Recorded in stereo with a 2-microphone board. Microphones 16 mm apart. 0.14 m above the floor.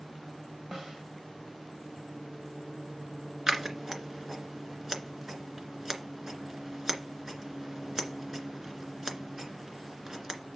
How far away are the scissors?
About 2 m.